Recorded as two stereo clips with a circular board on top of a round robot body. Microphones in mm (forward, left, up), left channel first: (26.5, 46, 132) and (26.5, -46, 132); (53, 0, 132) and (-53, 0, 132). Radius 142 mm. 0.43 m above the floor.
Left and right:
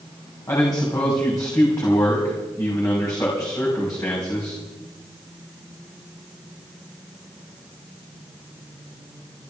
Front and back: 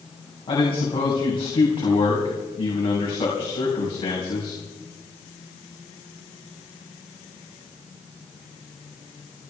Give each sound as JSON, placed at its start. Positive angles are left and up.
{"t": 0.5, "sound": "a man speaking", "azimuth_deg": 40, "distance_m": 4.0}